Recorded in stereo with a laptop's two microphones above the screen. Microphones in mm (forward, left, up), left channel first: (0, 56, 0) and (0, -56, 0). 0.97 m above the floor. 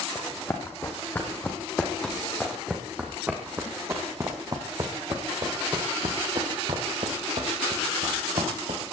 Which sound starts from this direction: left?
Running footsteps, at 0.1 s.